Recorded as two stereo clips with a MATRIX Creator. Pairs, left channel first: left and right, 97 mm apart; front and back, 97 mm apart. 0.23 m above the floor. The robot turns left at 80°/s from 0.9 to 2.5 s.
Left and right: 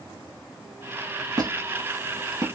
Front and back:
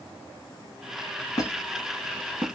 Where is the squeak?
45° right, 0.8 m; by 2.5 s 130° right, 0.8 m.